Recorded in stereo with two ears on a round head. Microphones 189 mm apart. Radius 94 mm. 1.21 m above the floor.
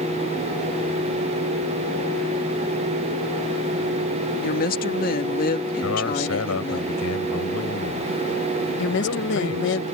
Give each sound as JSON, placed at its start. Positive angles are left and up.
{"t": 4.4, "sound": "a woman speaking", "side_deg": 45}
{"t": 5.8, "sound": "a man speaking", "side_deg": 80}
{"t": 8.8, "sound": "a woman speaking", "side_deg": 60}